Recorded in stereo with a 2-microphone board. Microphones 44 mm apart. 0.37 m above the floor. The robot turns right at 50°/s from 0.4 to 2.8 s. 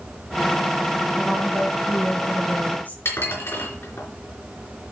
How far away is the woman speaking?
About 3 m.